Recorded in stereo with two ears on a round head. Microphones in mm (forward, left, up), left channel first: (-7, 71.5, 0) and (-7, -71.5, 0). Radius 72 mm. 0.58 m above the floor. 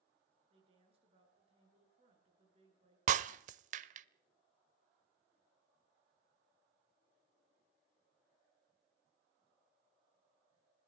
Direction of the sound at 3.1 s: 45° right (ahead or behind).